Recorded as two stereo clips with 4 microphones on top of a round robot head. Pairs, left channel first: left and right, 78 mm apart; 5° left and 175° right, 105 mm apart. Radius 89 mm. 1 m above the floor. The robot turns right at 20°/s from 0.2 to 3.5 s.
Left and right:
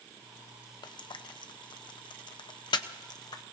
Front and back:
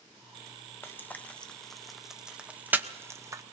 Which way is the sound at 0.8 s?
75° left.